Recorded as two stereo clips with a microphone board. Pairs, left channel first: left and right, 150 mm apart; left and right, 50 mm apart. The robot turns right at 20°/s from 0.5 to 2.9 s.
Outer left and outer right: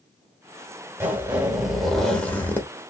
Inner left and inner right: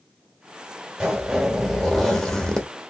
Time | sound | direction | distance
1.0 | a zipper | 15° right | 1.1 m